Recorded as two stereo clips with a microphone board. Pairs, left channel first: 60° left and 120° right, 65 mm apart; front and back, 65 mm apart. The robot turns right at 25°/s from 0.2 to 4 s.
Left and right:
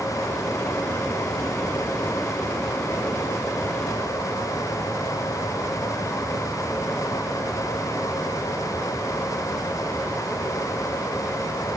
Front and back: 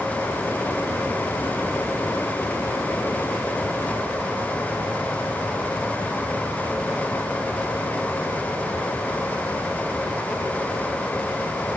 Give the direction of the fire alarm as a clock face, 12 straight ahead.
No fire alarm in this recording.